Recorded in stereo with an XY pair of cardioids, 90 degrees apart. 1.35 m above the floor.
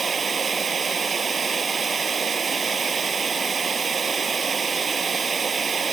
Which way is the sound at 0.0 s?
35° right.